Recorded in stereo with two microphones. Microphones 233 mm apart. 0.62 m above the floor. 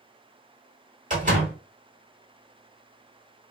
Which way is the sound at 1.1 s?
35° right (ahead or behind).